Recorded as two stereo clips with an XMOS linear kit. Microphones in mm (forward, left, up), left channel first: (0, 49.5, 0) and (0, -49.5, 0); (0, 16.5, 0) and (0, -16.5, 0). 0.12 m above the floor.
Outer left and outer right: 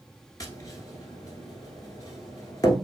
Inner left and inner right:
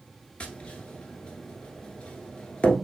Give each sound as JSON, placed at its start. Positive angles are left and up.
{"t": 0.4, "sound": "tapping", "side_deg": 35, "distance_m": 1.1}